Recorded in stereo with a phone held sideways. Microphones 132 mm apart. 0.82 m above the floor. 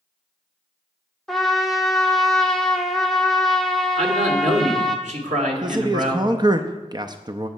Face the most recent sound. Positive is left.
turn(degrees=-35)  # may be behind; listen again after turning